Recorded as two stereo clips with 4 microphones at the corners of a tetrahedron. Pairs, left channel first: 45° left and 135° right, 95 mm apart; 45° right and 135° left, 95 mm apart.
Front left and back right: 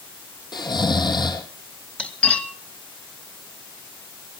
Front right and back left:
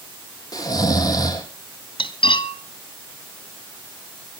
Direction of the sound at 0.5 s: 5° left.